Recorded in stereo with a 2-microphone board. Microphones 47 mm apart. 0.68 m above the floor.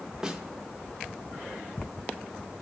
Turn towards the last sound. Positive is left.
turn(degrees=-15)  # may be behind; listen again after turning